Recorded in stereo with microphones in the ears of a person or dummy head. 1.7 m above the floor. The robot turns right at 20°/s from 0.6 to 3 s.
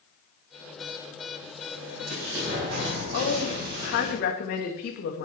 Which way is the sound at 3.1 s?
55° left (ahead or behind).